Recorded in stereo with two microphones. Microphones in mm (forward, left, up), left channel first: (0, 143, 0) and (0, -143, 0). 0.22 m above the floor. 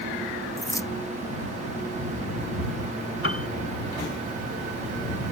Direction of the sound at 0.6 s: 10° left (ahead or behind).